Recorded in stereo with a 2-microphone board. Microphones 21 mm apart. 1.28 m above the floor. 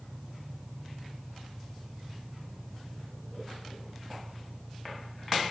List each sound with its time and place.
0.0 s an engine running: 60° right (ahead or behind)